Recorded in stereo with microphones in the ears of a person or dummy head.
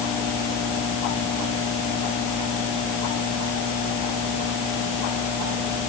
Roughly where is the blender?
I don't hear a blender.